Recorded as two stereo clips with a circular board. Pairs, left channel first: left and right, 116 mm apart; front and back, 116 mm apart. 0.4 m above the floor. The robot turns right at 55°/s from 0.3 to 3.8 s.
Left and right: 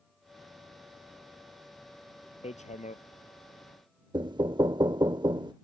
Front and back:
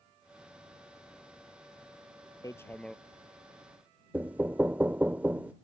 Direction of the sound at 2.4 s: 60° left.